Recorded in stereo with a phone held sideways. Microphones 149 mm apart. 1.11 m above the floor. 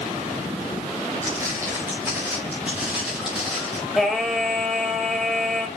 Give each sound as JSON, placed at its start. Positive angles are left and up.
{"t": 1.2, "sound": "footsteps", "side_deg": -20, "distance_m": 5.5}
{"t": 4.0, "sound": "singing", "side_deg": 0, "distance_m": 2.0}